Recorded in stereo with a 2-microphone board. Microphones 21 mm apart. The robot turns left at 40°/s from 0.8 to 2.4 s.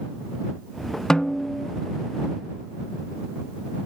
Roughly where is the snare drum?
Left.